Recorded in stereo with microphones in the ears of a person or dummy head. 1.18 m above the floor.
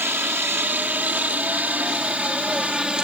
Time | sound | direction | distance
0.0 | a helicopter | 10° right (ahead or behind) | ?